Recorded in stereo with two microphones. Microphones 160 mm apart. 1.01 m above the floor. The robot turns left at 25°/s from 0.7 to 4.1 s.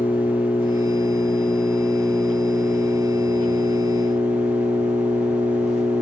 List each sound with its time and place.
0.0 s an engine running: 35° left, 5.5 m; by 6.0 s 50° right, 5.5 m